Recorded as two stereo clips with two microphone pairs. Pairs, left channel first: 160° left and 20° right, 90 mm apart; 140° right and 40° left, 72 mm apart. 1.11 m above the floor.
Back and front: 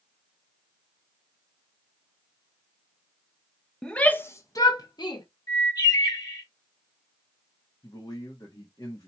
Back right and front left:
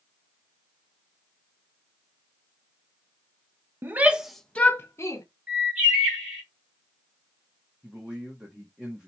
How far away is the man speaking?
About 1.2 m.